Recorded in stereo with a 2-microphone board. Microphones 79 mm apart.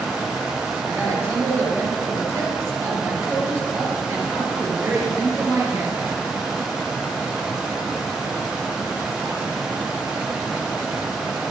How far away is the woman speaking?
About 4 m.